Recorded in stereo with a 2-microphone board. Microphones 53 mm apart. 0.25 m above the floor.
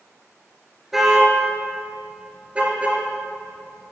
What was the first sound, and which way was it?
A car horn, 5° right (ahead or behind).